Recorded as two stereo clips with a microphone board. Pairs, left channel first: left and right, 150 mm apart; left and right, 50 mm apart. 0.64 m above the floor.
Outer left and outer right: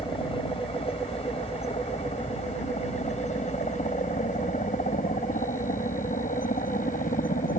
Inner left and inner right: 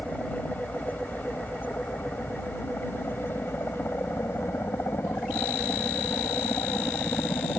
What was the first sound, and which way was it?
A helicopter, 35° left (ahead or behind).